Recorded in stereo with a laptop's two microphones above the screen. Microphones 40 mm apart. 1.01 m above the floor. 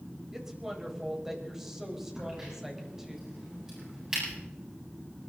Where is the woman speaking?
10° right (ahead or behind), 5 m.